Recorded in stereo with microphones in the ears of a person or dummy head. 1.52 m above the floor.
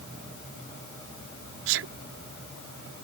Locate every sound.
1.7 s a sneeze: 65° right (ahead or behind)